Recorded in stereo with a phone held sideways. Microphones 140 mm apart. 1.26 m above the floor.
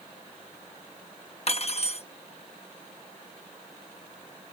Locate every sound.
1.5 s cutlery clinking: 45° left (ahead or behind)